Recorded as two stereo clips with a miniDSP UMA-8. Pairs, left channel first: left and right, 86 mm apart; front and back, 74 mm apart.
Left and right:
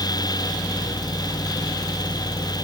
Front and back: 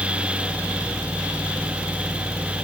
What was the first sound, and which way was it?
Only background noise.